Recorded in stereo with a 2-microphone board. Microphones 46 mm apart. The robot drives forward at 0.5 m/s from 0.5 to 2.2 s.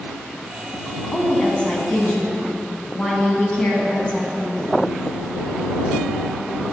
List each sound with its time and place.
1.1 s a woman speaking: 25° left (ahead or behind), 1.5 m